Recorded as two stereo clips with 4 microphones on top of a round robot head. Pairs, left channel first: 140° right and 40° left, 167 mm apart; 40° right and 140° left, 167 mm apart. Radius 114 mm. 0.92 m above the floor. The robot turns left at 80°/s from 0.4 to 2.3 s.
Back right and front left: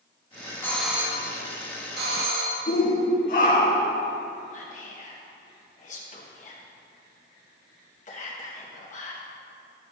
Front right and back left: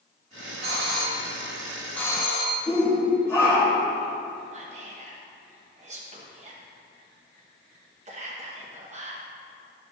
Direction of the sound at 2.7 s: 115° right.